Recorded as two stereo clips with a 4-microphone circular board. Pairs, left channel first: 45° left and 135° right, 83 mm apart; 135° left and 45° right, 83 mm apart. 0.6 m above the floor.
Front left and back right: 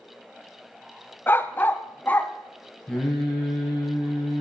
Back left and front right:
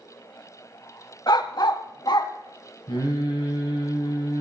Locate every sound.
1.3 s a dog barking: 110° left, 0.7 m; by 2.3 s 115° left, 1.2 m
2.9 s singing: 130° left, 4.5 m